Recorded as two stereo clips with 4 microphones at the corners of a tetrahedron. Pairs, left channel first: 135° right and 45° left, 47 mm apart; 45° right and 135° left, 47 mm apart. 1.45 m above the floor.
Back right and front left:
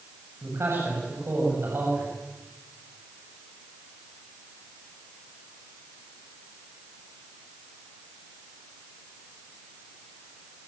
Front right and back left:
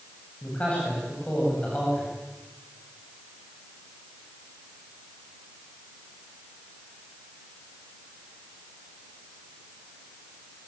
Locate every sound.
0.4 s a man speaking: 20° left, 8.5 m